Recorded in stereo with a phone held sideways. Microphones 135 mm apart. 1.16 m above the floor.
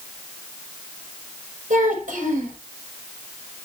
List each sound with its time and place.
1.7 s a child speaking: 85° right, 5 m